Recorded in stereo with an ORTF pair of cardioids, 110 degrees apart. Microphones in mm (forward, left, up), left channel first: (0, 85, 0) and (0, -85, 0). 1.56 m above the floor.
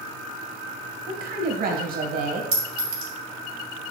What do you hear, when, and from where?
1.1 s a woman speaking: 60° right, 1.8 m
2.5 s a clink: 65° right, 2.5 m